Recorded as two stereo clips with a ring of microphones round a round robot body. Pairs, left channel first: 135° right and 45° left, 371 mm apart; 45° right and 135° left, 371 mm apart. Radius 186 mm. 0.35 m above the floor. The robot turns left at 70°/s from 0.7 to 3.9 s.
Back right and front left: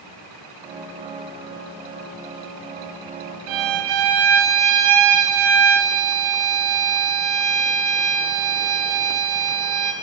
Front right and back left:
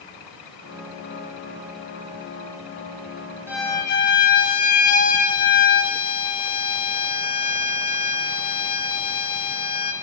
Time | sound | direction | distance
3.5 | a violin | 50° left | 1.6 m